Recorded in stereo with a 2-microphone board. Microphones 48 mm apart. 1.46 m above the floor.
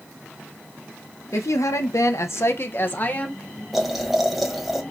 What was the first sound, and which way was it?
A woman speaking, 75° left (ahead or behind).